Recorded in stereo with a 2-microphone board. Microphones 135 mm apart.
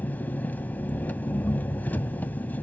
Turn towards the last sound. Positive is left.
turn(degrees=15)  # may be behind; listen again after turning